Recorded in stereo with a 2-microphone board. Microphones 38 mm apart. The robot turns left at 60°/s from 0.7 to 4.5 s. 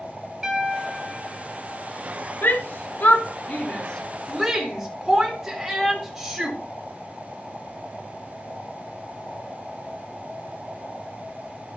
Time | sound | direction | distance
0.4 | a piano | 165° right | 4.5 m
2.4 | a shout | 65° left (ahead or behind) | 3.5 m